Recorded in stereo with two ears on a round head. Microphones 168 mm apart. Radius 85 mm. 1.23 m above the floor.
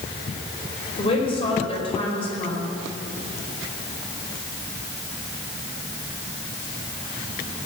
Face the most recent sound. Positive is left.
turn(degrees=30)  # may be behind; listen again after turning